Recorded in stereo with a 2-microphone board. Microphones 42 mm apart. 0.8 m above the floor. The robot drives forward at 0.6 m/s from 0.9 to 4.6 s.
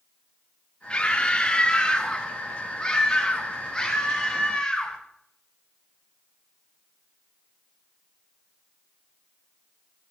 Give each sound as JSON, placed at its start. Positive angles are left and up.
{"t": 0.9, "sound": "a scream", "side_deg": 25, "distance_m": 2.5}